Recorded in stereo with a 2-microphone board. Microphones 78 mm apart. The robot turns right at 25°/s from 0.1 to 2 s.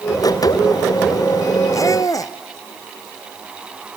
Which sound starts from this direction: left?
A squeak, at 1.7 s.